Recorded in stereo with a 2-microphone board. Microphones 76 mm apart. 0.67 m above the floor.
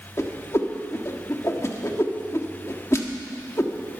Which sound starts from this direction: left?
A whoosh, at 0.2 s.